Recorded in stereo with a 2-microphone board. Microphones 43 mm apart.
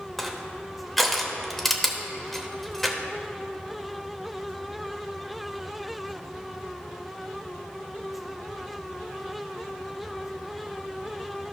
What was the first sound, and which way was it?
Crushing, 5° left (ahead or behind).